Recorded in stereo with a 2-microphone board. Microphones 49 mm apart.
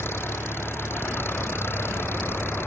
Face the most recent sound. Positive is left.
turn(degrees=55)  # may be behind; listen again after turning